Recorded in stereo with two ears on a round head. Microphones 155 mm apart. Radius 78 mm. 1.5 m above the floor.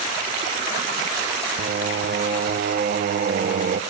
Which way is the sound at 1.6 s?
50° right (ahead or behind).